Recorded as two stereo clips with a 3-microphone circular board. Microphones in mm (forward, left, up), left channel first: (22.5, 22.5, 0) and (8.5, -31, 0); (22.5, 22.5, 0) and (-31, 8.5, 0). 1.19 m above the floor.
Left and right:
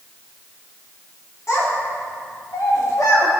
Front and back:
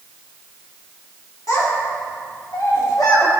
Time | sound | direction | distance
1.5 | a child speaking | 40° left | 2.5 m